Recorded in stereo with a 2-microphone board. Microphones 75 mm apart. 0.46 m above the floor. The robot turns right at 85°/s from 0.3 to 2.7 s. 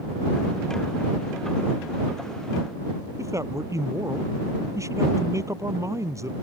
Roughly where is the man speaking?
Right.